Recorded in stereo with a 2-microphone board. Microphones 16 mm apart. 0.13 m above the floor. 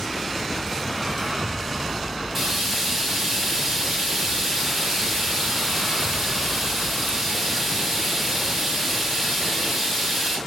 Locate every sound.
2.4 s frying: 10° right (ahead or behind), 4 m